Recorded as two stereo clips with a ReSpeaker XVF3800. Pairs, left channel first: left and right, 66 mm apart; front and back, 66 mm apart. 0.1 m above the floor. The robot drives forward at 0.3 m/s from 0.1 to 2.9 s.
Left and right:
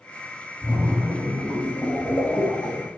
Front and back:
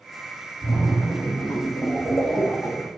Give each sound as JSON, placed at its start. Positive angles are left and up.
{"t": 0.6, "sound": "a splash", "azimuth_deg": 40, "distance_m": 1.1}